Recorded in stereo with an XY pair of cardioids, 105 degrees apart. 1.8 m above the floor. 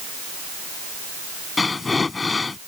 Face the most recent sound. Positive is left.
turn(degrees=30)